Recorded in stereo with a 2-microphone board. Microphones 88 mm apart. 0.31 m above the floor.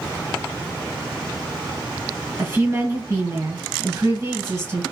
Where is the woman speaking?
30° right (ahead or behind), 1.8 m.